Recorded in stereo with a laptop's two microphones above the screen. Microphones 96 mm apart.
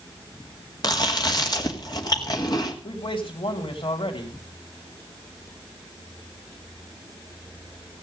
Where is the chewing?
45° left (ahead or behind), 2.0 m.